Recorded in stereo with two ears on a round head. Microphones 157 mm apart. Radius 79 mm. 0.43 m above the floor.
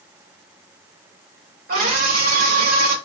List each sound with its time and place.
1.7 s a scream: 55° right (ahead or behind), 1.7 m